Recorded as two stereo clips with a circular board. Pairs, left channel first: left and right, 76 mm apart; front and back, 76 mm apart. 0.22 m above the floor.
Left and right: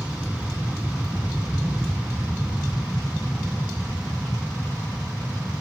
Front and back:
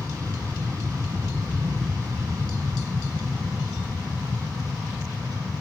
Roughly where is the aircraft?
Behind right.